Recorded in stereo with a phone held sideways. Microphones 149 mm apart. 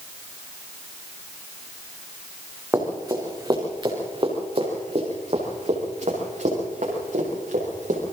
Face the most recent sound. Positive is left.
turn(degrees=-65)  # may be behind; listen again after turning